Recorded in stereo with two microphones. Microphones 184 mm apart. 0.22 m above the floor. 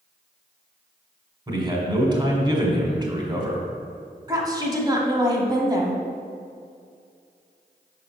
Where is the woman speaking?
25° right (ahead or behind), 1.1 m.